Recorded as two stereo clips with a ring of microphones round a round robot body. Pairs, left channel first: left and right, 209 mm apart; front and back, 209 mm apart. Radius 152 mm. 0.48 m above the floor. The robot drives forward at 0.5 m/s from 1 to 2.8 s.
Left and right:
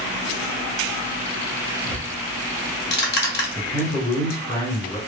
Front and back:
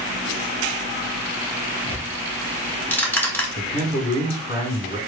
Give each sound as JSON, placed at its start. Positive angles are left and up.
{"t": 1.9, "sound": "ticking", "azimuth_deg": 55, "distance_m": 1.4}
{"t": 3.5, "sound": "a man speaking", "azimuth_deg": 110, "distance_m": 2.5}